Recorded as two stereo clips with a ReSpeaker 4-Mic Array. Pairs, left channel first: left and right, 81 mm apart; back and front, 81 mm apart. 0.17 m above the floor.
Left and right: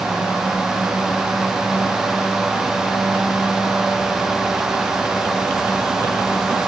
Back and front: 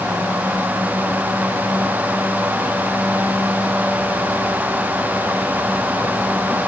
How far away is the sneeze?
I don't hear a sneeze.